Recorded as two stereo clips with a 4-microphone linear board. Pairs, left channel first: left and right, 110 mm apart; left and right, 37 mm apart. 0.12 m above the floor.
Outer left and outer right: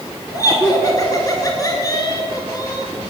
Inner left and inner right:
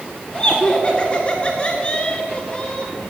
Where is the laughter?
35° left (ahead or behind), 1.3 m.